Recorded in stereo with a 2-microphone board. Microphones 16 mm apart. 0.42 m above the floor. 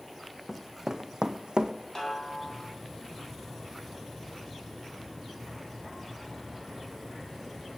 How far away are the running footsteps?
About 1.1 m.